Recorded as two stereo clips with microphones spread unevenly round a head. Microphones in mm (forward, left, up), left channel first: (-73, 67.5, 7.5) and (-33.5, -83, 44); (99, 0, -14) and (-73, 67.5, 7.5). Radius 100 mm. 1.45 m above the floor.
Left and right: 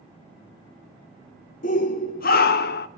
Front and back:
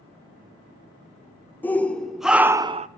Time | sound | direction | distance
1.6 | a shout | 60° left | 1.7 m